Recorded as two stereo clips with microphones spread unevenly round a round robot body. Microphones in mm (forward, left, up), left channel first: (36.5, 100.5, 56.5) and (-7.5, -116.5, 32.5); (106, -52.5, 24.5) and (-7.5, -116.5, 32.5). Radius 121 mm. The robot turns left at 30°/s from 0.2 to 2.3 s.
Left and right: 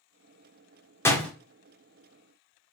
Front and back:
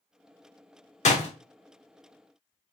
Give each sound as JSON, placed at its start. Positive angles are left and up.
{"t": 1.1, "sound": "a door slam", "azimuth_deg": 0, "distance_m": 1.1}